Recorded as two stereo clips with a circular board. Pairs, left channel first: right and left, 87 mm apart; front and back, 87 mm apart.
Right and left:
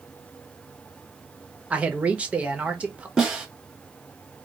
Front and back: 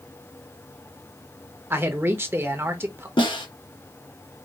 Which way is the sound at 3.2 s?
Straight ahead.